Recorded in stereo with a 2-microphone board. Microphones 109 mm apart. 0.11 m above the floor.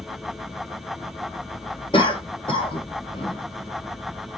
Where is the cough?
50° left (ahead or behind), 2.0 m.